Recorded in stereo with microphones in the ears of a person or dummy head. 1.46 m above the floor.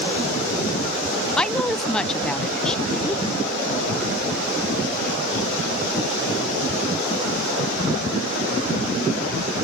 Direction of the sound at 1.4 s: 5° left (ahead or behind).